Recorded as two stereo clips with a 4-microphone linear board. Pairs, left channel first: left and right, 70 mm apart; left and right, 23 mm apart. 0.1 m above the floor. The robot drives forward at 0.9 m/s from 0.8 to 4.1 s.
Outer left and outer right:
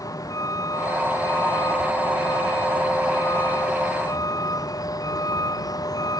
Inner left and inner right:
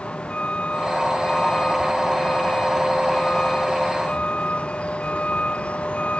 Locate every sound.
0.0 s a vehicle: 60° left (ahead or behind); by 6.2 s 65° left (ahead or behind)